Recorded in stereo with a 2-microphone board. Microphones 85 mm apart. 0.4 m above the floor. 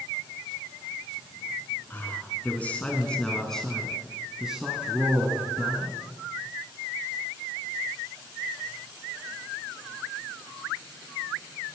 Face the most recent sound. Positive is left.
turn(degrees=-25)  # may be behind; listen again after turning